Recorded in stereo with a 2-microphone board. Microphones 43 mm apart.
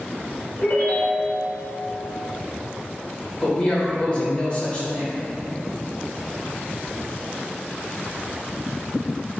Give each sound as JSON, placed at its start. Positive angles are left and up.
{"t": 0.6, "sound": "a ringtone", "side_deg": 55, "distance_m": 1.5}
{"t": 3.4, "sound": "a man speaking", "side_deg": 40, "distance_m": 1.6}